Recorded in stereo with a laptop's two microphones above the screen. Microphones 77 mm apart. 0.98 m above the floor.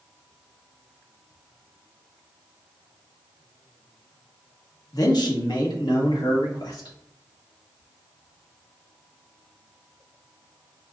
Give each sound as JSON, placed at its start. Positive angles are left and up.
{"t": 4.9, "sound": "a man speaking", "side_deg": 55, "distance_m": 0.9}